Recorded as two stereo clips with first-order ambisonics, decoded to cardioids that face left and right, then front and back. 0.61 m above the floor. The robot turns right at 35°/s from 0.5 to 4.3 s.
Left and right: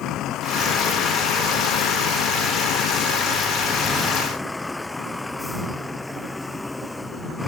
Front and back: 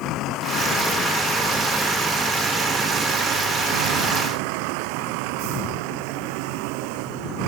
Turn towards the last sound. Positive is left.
turn(degrees=175)